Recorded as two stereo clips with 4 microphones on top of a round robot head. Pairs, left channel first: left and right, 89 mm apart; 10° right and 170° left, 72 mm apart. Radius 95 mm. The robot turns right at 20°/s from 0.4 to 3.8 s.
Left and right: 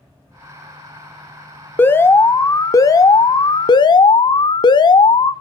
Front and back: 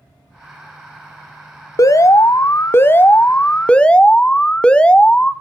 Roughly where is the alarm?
Ahead left.